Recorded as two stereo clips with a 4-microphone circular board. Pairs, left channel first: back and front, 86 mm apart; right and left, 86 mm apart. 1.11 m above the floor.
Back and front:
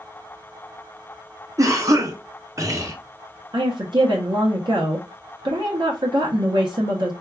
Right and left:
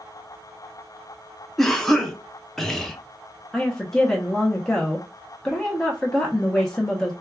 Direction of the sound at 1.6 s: 5° right.